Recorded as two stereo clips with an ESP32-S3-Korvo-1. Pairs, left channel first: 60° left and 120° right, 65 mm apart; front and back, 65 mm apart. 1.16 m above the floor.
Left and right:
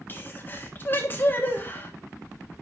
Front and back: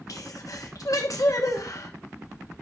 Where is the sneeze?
5° left, 1.3 m.